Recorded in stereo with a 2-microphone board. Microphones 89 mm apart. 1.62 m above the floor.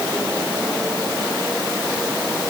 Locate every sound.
Only background noise.